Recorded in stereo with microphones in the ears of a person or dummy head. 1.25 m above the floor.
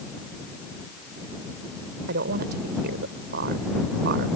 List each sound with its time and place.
2.1 s a woman speaking: 55° right (ahead or behind)